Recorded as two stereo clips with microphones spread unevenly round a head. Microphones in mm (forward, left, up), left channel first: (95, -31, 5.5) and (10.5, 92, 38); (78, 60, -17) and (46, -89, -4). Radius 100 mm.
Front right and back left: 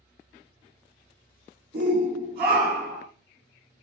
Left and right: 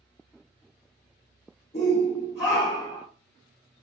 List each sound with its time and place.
1.7 s a shout: 120° left, 1.3 m; by 3.0 s 85° left, 1.0 m